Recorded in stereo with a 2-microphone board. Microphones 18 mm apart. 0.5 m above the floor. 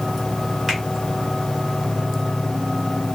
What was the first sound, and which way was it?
A finger snap, centre (ahead or behind).